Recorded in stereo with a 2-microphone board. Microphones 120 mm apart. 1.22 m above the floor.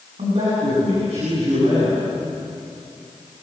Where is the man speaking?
65° right (ahead or behind), 9 m.